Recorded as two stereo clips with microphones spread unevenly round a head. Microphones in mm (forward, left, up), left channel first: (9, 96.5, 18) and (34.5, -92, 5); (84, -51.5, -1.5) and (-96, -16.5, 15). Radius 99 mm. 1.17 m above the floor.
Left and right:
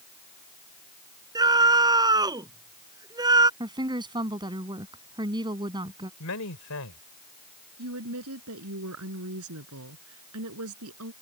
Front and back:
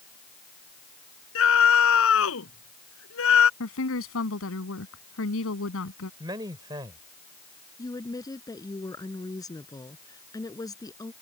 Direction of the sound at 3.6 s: 15° right.